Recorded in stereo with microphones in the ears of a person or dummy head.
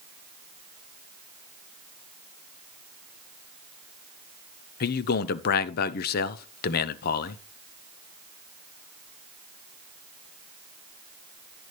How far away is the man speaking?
About 0.7 m.